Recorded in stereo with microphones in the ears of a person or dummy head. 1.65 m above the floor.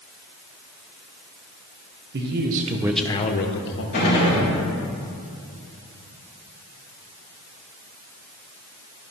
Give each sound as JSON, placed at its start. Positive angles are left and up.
{"t": 2.1, "sound": "a man speaking", "side_deg": -65, "distance_m": 1.1}
{"t": 3.9, "sound": "a gunshot", "side_deg": 45, "distance_m": 2.5}